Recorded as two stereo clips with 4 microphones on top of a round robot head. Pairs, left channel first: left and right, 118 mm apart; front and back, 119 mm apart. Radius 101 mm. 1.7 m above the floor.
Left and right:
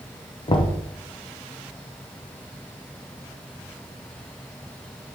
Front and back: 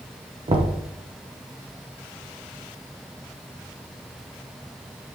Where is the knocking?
135° left, 1.1 m.